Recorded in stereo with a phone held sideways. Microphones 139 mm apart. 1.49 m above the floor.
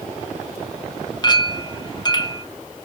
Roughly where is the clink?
Left.